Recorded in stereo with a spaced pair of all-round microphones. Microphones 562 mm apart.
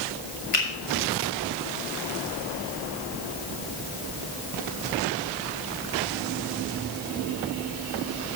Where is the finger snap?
75° left (ahead or behind), 2 m.